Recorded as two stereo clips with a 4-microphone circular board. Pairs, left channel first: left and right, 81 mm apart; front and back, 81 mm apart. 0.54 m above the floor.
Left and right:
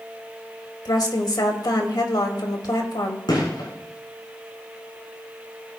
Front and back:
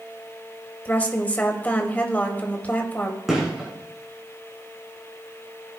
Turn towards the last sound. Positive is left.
turn(degrees=95)